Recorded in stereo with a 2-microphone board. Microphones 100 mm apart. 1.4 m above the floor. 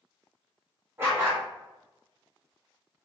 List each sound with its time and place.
1.0 s a dog barking: 25° right (ahead or behind), 0.8 m